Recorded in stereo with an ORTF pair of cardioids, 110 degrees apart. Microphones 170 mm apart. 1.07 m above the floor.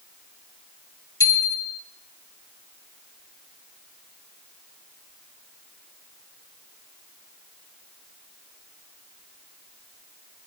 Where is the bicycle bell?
25° left, 4 m.